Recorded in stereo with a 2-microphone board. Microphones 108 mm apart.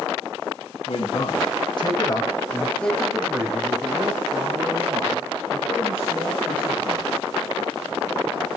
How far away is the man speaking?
About 3.5 m.